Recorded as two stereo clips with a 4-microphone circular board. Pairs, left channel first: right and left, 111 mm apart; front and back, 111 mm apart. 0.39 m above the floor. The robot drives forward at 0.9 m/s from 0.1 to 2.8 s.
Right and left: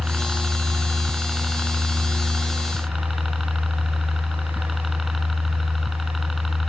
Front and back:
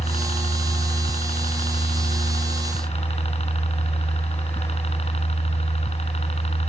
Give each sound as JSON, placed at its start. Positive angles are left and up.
{"t": 0.0, "sound": "a helicopter", "azimuth_deg": 0}